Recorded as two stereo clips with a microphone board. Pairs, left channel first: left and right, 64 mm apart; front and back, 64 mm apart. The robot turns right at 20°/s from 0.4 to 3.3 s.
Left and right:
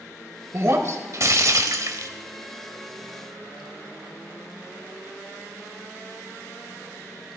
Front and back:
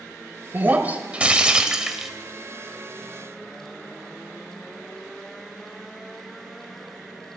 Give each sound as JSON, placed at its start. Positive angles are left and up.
{"t": 0.5, "sound": "breaking glass", "azimuth_deg": -125, "distance_m": 0.9}